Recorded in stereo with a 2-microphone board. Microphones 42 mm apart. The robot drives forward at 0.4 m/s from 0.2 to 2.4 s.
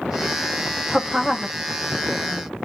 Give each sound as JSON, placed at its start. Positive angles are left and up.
{"t": 0.9, "sound": "a woman speaking", "side_deg": 5, "distance_m": 0.6}